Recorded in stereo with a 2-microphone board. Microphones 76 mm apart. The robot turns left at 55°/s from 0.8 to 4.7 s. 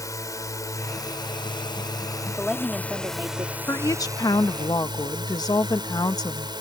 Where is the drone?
130° left; by 6.6 s 85° right.